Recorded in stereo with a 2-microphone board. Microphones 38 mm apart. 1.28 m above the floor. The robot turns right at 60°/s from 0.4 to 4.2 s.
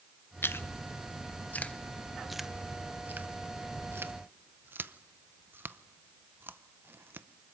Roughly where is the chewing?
Left.